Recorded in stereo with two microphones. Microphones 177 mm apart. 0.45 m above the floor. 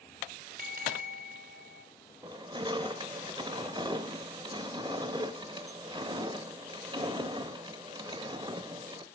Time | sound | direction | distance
0.6 | a bell | 55° right (ahead or behind) | 0.9 m
2.2 | crushing | 30° right (ahead or behind) | 0.6 m